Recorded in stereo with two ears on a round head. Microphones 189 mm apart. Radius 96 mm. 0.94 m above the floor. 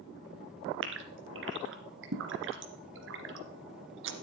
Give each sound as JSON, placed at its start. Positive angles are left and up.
{"t": 0.8, "sound": "a gasp", "side_deg": -65, "distance_m": 2.5}